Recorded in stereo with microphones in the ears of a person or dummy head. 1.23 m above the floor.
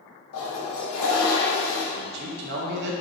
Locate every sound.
0.3 s a toilet flushing: 80° left, 2.5 m
1.9 s a man speaking: 65° right (ahead or behind), 1.4 m